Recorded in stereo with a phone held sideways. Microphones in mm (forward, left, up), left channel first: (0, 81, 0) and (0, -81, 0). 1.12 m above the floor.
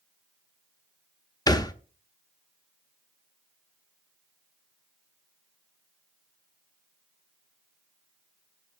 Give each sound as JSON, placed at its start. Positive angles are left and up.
{"t": 1.5, "sound": "a thud", "side_deg": 25, "distance_m": 0.6}